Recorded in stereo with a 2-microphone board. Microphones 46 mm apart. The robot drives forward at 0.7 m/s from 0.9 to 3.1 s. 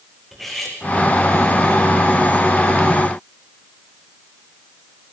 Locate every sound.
0.3 s cutlery clinking: centre (ahead or behind), 4.5 m